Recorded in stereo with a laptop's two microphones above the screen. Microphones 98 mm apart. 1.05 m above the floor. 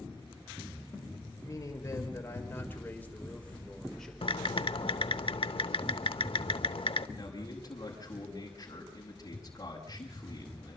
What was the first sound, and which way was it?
A man speaking, 35° left (ahead or behind).